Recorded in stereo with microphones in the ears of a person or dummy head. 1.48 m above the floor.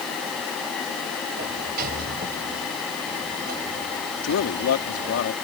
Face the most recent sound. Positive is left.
turn(degrees=80)